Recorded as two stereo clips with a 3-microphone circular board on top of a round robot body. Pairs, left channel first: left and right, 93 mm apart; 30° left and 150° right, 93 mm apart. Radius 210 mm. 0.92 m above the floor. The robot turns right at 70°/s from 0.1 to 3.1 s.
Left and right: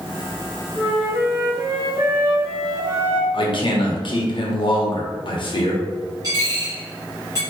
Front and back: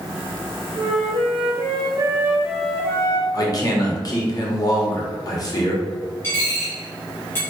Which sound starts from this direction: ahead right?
A dropped coin, at 6.2 s.